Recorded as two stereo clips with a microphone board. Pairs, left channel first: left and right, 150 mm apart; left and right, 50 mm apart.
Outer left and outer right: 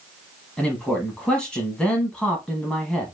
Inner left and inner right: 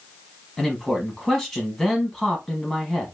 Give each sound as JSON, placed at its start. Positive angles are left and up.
{"t": 0.6, "sound": "a man speaking", "side_deg": 5, "distance_m": 1.1}